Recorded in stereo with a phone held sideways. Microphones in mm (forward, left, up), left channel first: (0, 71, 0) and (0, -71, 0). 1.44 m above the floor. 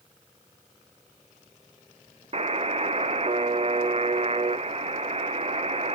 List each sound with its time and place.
2.3 s a buzzer: 45° right (ahead or behind), 0.6 m